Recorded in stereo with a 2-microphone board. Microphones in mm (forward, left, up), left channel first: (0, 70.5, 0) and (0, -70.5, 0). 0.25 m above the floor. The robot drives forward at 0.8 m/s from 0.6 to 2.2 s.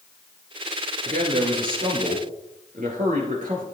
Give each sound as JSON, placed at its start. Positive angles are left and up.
{"t": 1.0, "sound": "a man speaking", "side_deg": -75, "distance_m": 3.5}